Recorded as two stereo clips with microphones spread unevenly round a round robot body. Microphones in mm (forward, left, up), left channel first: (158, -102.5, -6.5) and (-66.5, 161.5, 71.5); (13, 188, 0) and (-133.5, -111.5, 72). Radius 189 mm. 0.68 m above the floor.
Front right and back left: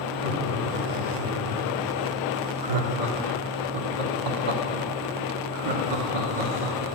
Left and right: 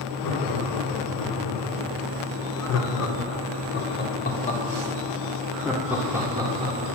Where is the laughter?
70° left, 3.5 m; by 6.8 s 165° left, 2.5 m.